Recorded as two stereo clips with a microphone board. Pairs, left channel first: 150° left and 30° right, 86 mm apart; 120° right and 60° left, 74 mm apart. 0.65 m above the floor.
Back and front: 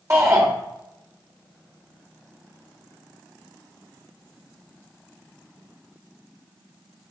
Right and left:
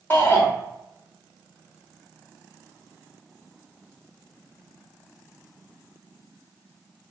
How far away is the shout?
About 1.3 m.